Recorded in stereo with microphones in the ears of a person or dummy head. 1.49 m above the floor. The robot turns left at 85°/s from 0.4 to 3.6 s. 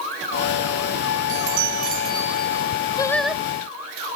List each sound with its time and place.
1.3 s a chime: 90° right; by 2.7 s 150° left
3.0 s singing: 25° left; by 3.4 s 15° right